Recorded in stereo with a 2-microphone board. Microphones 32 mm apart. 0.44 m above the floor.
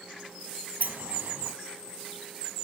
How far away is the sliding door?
About 0.9 m.